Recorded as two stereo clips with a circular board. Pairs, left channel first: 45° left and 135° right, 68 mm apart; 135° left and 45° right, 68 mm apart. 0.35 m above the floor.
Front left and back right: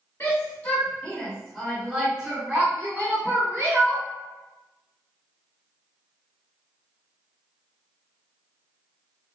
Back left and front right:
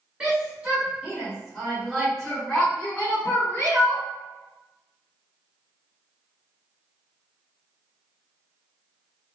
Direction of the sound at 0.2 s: 15° left.